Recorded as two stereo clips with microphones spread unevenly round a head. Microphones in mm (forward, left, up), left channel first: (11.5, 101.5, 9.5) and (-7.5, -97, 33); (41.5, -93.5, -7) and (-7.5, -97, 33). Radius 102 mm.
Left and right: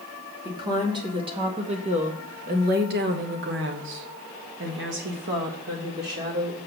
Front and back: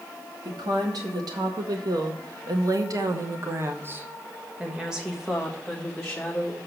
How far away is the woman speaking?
About 2 m.